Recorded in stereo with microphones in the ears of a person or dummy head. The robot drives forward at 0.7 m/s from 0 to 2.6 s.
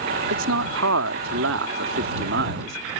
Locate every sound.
0.3 s a man speaking: 80° right; by 2.8 s 70° right (ahead or behind)